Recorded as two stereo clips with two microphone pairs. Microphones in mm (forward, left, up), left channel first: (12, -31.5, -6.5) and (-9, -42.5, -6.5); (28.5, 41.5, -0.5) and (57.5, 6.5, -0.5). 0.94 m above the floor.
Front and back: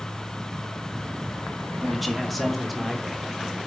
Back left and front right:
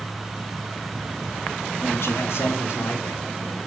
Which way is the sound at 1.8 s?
115° left.